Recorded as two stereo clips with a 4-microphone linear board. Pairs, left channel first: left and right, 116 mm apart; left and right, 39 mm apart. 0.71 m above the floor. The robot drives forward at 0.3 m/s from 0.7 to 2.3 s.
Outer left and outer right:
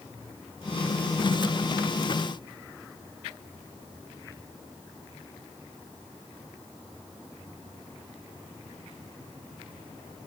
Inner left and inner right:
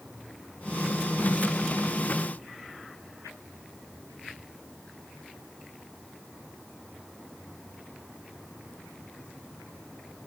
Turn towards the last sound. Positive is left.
No sound to turn to.